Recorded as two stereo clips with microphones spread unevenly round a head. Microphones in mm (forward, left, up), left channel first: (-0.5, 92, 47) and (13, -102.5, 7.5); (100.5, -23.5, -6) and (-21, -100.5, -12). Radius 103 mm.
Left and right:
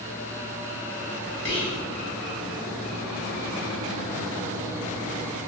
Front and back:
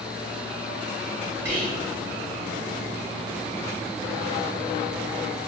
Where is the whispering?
135° left, 1.3 m.